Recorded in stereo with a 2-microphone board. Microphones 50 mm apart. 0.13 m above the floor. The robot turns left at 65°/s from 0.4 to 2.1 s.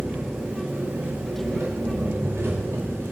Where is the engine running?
5° right, 9 m; by 3.1 s 115° right, 9 m.